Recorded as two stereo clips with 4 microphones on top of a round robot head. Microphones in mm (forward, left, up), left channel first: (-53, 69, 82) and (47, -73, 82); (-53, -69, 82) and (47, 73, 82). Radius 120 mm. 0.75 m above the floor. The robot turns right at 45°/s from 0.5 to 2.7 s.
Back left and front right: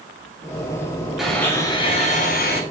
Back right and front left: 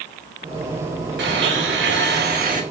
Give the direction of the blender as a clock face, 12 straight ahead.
11 o'clock.